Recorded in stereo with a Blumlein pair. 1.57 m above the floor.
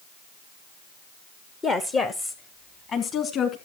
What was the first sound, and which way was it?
A woman speaking, 15° left.